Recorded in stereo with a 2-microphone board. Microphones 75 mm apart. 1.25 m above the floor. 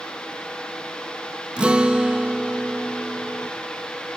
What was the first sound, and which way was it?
A guitar, 15° right (ahead or behind).